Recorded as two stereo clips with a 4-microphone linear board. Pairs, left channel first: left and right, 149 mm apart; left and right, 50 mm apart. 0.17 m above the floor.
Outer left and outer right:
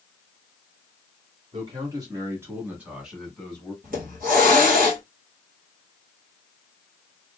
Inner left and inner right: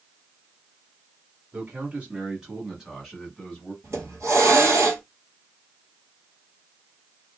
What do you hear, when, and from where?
1.5 s a man speaking: 35° right (ahead or behind), 1.5 m; by 3.7 s 10° left (ahead or behind), 1.5 m
3.8 s a hiss: 70° right (ahead or behind), 1.3 m